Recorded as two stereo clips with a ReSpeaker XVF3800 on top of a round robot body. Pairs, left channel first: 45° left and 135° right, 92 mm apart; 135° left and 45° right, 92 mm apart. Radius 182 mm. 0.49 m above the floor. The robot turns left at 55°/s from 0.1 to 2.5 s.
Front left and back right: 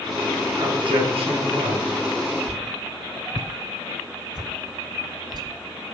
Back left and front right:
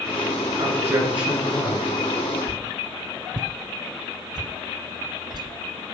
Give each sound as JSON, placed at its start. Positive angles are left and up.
{"t": 0.6, "sound": "a man speaking", "azimuth_deg": -90, "distance_m": 9.0}
{"t": 2.5, "sound": "a whoosh", "azimuth_deg": -90, "distance_m": 0.8}